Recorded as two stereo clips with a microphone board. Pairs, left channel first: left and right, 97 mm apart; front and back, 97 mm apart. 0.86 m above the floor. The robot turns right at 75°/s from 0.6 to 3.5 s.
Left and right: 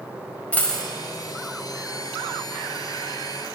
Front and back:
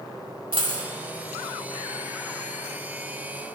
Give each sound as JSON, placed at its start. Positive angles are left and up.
{"t": 0.5, "sound": "a dropped coin", "azimuth_deg": 160, "distance_m": 1.1}